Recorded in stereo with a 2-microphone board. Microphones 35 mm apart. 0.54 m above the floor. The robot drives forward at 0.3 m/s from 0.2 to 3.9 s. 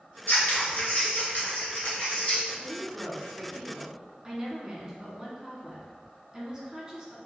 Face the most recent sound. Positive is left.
turn(degrees=-20)  # may be behind; listen again after turning